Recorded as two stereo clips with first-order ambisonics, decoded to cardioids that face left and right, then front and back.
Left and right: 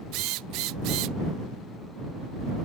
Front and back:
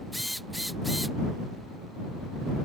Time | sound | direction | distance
0.1 | a drill | 95° right | ?